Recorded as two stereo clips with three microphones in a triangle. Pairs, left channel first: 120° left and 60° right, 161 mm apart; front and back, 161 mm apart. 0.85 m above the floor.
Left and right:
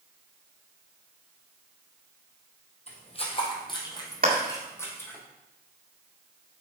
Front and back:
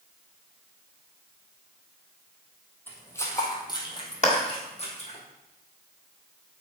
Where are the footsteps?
75° left, 2 m; by 5.2 s 40° left, 2.5 m.